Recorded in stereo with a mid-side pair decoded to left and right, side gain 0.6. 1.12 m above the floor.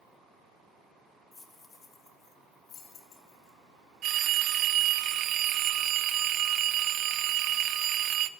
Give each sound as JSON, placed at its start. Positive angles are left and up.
{"t": 1.3, "sound": "keys jangling", "azimuth_deg": 20, "distance_m": 1.2}
{"t": 4.0, "sound": "a phone ringing", "azimuth_deg": -55, "distance_m": 0.5}